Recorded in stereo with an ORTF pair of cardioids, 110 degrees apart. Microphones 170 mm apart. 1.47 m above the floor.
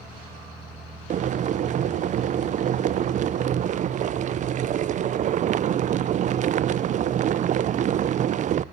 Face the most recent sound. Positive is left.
turn(degrees=-45)